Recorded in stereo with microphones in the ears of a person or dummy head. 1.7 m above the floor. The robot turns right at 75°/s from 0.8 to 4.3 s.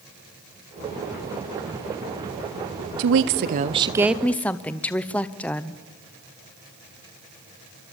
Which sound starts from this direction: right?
A woman speaking, at 3.0 s.